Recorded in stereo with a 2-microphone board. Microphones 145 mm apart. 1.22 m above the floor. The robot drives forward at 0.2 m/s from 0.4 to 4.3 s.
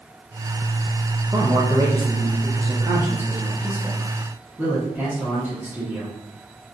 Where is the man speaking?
25° right (ahead or behind), 0.5 m; by 6.1 s 15° right (ahead or behind), 1.0 m.